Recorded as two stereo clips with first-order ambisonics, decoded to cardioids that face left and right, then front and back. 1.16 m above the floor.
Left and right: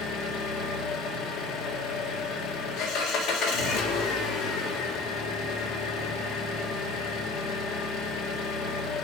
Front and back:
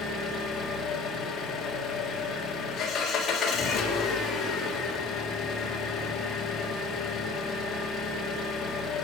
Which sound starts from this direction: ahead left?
An engine running, at 0.0 s.